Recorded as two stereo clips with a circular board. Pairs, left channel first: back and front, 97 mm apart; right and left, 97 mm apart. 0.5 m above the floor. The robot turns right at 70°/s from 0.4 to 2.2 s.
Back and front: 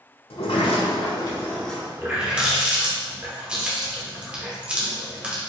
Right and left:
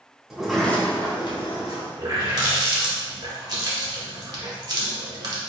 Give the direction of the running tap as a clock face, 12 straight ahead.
10 o'clock.